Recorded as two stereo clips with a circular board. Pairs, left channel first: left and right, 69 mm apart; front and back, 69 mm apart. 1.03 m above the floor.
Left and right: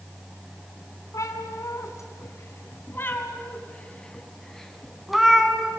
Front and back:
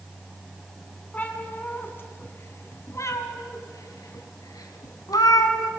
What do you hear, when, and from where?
1.1 s a cat meowing: 65° left, 2.5 m; by 5.7 s 10° right, 2.5 m